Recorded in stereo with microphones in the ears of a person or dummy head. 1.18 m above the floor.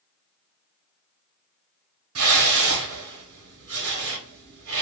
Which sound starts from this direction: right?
A whoosh, at 2.1 s.